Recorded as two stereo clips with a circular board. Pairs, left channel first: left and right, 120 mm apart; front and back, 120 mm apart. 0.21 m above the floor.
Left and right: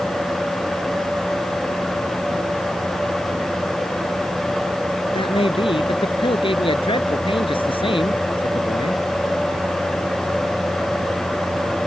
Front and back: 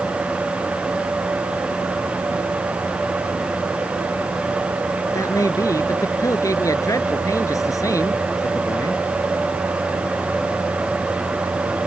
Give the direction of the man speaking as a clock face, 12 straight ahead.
10 o'clock.